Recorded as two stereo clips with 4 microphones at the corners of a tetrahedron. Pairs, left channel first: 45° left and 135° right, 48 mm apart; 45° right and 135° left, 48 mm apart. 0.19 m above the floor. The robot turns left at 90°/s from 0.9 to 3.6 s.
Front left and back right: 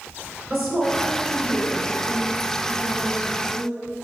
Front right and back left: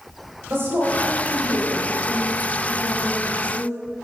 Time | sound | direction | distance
0.5 | a woman speaking | 145° left | 3 m